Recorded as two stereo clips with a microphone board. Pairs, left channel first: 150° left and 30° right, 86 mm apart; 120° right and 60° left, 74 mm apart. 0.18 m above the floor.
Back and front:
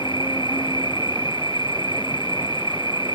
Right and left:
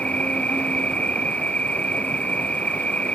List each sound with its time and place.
0.0 s an insect: 165° left